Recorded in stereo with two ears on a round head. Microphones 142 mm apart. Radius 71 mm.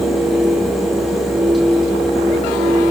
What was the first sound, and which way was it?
Only background noise.